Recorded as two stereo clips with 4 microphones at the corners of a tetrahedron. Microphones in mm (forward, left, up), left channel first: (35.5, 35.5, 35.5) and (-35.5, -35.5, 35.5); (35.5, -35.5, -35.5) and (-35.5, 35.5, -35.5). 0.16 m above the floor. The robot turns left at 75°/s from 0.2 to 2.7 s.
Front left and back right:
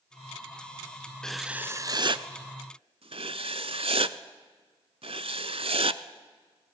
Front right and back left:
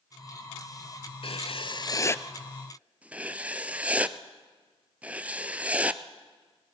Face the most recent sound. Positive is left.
turn(degrees=-150)